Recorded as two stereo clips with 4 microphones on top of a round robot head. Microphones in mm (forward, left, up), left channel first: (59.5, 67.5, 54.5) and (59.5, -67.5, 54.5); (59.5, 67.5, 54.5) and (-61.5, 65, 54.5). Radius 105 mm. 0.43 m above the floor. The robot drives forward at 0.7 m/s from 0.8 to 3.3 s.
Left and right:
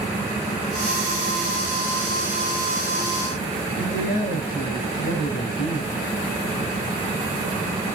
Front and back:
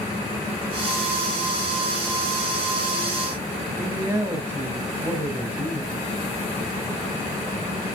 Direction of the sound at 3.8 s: 110° left.